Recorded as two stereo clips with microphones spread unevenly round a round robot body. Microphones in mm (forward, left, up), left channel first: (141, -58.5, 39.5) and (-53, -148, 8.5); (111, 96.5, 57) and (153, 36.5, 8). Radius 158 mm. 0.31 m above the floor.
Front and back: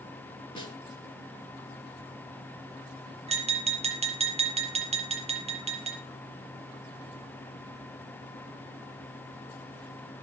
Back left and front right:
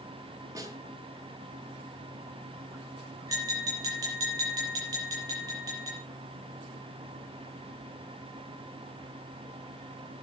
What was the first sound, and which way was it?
A snare drum, 45° right.